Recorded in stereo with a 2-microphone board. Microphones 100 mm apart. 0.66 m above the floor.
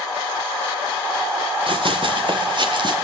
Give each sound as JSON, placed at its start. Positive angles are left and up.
{"t": 1.7, "sound": "running footsteps", "side_deg": -55, "distance_m": 3.0}